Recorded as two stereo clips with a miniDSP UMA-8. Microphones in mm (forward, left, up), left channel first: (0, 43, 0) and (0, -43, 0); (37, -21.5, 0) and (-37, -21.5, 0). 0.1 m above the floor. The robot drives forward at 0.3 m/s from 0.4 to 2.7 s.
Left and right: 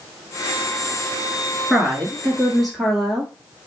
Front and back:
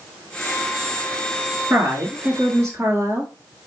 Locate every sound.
1.7 s a woman speaking: 175° right, 1.1 m; by 3.3 s straight behind, 1.3 m